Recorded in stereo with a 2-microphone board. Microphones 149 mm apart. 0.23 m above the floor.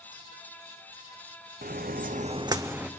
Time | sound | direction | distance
1.6 | footsteps | 70° right (ahead or behind) | 0.7 m